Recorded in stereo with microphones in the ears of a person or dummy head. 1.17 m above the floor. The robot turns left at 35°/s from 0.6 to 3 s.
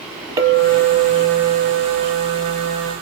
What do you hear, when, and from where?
0.4 s a clink: 25° right, 0.9 m; by 2.9 s 105° right, 0.9 m